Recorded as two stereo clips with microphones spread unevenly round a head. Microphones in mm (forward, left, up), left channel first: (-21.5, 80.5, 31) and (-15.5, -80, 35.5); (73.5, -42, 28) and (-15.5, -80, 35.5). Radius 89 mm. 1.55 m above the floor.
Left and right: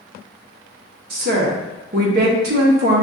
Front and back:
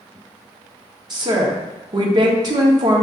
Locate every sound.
1.1 s a woman speaking: 115° right, 1.0 m